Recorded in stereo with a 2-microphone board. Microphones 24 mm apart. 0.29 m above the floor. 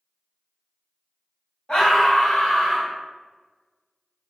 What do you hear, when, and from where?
1.7 s a scream: 40° left (ahead or behind), 1.8 m